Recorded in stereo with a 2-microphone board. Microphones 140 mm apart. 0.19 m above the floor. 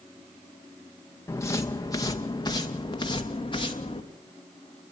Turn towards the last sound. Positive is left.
turn(degrees=35)  # may be behind; listen again after turning